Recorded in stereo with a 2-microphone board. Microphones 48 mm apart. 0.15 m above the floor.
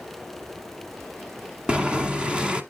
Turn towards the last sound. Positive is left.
turn(degrees=-20)  # may be behind; listen again after turning